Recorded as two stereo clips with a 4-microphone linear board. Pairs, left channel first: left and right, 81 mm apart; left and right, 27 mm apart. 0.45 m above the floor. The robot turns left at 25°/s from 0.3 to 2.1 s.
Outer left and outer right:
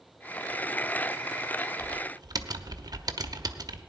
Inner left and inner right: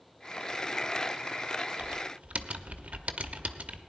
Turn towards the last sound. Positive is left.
turn(degrees=-50)  # may be behind; listen again after turning